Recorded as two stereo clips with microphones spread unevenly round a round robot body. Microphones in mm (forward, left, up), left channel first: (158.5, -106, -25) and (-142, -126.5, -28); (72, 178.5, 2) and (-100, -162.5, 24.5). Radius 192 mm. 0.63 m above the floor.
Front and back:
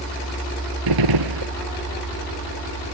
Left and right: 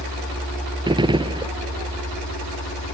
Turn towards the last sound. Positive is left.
turn(degrees=165)